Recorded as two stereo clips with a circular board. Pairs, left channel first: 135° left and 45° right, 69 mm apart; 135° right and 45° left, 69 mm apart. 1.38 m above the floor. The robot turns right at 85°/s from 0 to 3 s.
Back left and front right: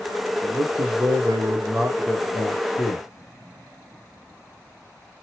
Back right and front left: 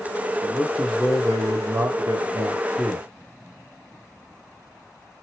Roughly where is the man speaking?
Right.